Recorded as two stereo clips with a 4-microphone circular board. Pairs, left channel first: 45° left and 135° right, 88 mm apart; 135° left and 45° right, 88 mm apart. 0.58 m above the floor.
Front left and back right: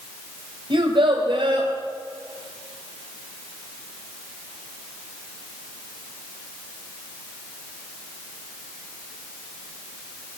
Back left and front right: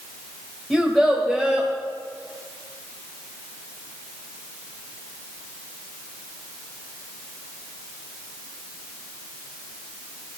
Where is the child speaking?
140° right, 2 m.